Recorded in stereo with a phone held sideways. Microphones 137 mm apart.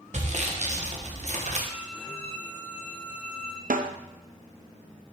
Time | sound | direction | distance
0.1 | sawing | 55° right (ahead or behind) | 1.1 m
1.7 | a violin | 10° left (ahead or behind) | 1.0 m
3.7 | a snare drum | 85° right | 0.5 m